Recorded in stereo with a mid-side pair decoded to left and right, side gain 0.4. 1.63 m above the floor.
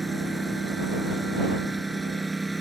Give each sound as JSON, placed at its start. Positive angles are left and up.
{"t": 0.0, "sound": "a lawn mower", "azimuth_deg": -15}